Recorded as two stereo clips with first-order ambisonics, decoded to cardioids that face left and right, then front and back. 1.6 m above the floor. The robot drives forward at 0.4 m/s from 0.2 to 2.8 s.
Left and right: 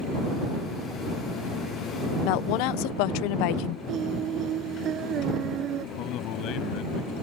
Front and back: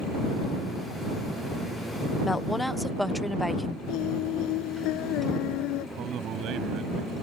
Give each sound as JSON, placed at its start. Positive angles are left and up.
{"t": 2.2, "sound": "a woman speaking", "azimuth_deg": 80}
{"t": 3.9, "sound": "singing", "azimuth_deg": -35}
{"t": 6.0, "sound": "a man speaking", "azimuth_deg": 130}